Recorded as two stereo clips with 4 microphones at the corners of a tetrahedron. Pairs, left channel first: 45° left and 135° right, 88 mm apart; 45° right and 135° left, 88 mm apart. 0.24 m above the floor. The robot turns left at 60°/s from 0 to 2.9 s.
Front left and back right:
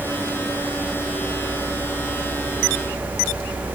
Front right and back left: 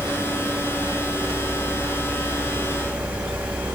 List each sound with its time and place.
Only background noise.